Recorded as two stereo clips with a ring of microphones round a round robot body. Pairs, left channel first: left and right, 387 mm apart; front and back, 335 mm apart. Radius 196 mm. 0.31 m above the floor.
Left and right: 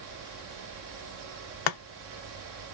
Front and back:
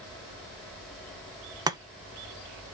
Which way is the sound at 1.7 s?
100° left.